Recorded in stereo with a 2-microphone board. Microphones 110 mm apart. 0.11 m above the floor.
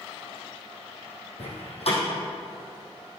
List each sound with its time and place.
1.4 s a door slam: 65° left (ahead or behind), 3 m